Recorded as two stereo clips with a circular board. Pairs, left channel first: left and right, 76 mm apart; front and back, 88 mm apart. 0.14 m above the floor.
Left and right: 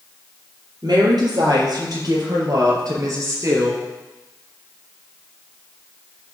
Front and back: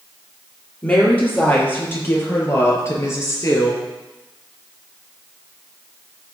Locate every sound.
0.8 s a woman speaking: 70° right, 4 m; by 3.8 s 45° right, 3.5 m